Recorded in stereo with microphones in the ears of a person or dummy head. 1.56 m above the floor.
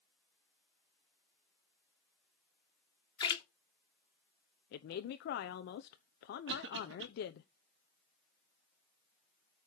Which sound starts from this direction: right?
A cough, at 6.5 s.